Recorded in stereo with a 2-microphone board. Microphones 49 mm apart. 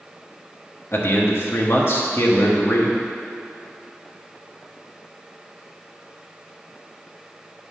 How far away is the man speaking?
About 1.0 m.